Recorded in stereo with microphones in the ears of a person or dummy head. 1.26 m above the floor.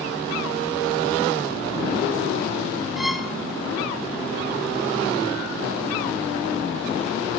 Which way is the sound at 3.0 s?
5° right (ahead or behind).